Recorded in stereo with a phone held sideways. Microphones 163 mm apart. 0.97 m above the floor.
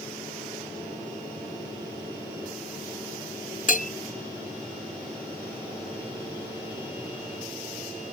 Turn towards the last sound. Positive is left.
turn(degrees=55)  # may be behind; listen again after turning